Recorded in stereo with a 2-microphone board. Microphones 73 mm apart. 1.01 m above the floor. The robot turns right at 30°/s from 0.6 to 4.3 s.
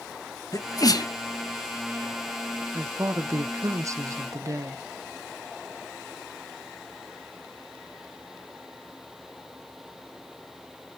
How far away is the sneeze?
About 0.9 m.